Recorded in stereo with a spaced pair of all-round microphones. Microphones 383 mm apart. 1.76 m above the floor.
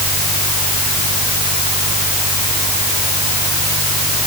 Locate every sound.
0.0 s a fan: 75° right (ahead or behind)